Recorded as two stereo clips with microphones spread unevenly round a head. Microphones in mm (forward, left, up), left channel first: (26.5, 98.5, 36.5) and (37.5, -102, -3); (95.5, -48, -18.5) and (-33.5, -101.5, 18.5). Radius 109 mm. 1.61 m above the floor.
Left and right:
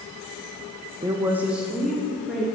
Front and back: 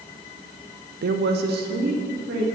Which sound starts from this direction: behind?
A woman speaking, at 1.0 s.